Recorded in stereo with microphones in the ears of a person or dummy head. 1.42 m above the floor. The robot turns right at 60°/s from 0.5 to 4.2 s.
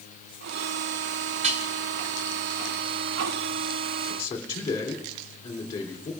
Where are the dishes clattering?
40° right (ahead or behind), 0.8 m; by 1.7 s 50° right (ahead or behind), 0.8 m.